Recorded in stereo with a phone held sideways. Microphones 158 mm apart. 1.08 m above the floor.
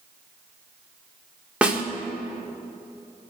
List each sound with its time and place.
1.6 s a snare drum: 5° right (ahead or behind), 1.4 m